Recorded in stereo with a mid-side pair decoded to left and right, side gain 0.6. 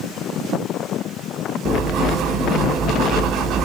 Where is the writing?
60° right, 0.9 m.